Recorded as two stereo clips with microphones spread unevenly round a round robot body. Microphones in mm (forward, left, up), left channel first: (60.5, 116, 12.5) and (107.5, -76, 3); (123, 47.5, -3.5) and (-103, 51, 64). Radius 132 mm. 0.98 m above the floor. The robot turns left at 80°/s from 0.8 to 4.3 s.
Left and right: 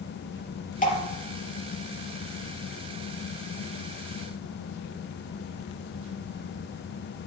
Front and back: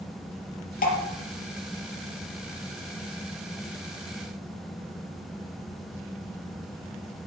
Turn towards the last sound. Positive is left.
turn(degrees=140)